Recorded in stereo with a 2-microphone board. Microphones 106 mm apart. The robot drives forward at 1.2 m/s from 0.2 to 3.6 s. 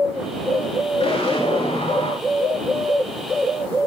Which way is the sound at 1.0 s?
70° left (ahead or behind).